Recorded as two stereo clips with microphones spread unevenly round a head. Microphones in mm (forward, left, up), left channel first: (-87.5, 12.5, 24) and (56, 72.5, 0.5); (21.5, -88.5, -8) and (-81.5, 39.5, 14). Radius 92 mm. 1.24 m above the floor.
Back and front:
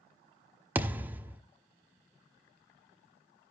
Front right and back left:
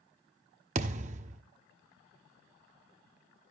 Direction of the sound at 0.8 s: 105° left.